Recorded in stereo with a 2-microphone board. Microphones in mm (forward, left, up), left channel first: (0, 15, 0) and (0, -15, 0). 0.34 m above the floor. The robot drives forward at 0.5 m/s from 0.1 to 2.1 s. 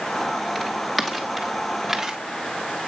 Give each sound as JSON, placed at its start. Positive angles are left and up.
{"t": 0.6, "sound": "footsteps", "side_deg": 10, "distance_m": 3.5}